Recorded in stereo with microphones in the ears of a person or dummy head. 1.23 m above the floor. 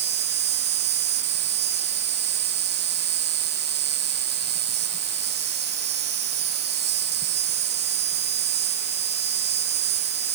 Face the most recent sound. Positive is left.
turn(degrees=-55)  # may be behind; listen again after turning